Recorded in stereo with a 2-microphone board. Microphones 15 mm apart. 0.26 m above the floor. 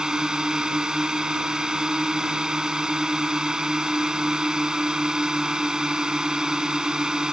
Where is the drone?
60° right (ahead or behind).